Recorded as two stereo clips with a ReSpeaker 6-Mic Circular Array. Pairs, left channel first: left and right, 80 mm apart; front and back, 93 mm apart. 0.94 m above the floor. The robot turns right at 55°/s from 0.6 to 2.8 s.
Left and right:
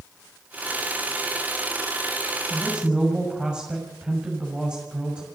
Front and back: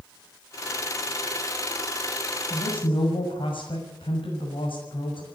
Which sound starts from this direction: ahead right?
A woman speaking, at 2.5 s.